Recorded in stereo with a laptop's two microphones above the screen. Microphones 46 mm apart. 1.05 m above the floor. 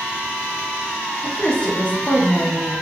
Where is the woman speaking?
25° left (ahead or behind), 0.7 m.